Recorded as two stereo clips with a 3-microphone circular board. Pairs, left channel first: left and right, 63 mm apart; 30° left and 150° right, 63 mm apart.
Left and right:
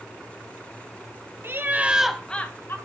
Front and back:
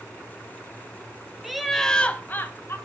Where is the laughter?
65° right, 1.5 m; by 2.8 s 60° left, 1.5 m.